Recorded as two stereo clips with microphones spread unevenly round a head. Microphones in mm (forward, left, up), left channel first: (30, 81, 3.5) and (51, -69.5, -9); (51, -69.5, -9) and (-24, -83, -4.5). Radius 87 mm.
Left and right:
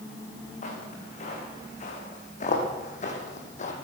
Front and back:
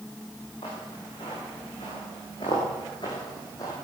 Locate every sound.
0.6 s footsteps: 60° left, 5.5 m; by 3.7 s 70° left, 3 m